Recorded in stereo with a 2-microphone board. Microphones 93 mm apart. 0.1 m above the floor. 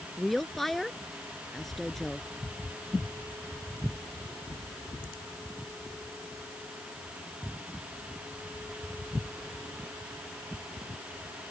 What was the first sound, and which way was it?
A woman speaking, 5° left (ahead or behind).